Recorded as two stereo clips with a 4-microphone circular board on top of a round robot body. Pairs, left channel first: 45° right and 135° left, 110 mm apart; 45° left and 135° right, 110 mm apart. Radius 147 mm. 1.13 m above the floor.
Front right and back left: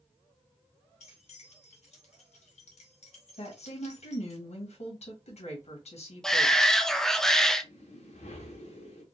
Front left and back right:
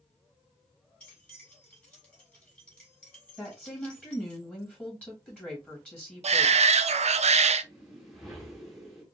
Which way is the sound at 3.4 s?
35° right.